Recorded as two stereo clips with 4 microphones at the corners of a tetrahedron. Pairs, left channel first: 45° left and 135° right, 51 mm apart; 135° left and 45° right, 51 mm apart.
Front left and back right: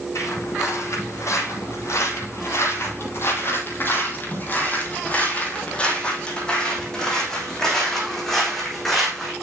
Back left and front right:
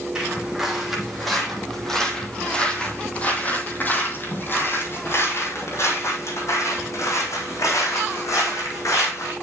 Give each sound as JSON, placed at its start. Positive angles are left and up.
{"t": 0.1, "sound": "footsteps", "azimuth_deg": 35, "distance_m": 3.0}